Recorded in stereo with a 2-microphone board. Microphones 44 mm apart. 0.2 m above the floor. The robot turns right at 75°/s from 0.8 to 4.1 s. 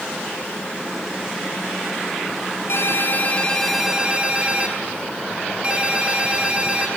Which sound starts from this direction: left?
A ringtone, at 2.7 s.